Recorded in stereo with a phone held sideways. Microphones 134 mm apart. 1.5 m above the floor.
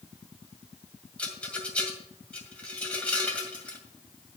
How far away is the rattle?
About 2 m.